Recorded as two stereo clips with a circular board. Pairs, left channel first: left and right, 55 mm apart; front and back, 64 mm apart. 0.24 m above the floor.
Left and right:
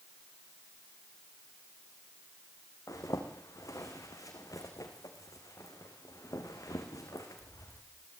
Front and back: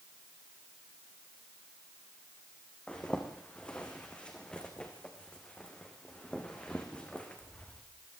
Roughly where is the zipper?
Left.